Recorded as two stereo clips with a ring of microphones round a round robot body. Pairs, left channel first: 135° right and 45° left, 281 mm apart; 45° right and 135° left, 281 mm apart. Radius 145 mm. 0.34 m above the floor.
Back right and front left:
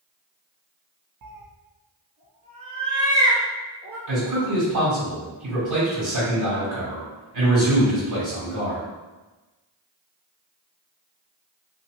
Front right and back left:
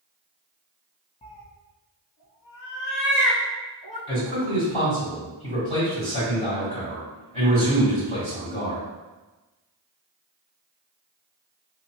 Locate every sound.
1.2 s a cat meowing: 25° left, 0.5 m; by 4.0 s 35° right, 1.7 m
4.1 s a man speaking: 30° left, 1.9 m